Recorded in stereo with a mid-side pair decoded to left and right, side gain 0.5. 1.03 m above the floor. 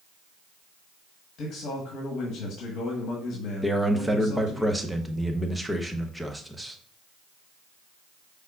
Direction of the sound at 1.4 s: 65° left.